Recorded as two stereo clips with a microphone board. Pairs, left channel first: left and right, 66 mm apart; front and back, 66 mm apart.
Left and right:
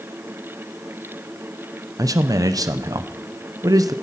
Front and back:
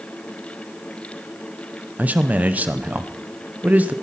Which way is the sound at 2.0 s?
115° right.